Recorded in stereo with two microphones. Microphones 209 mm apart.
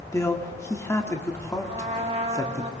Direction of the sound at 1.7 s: 30° right (ahead or behind).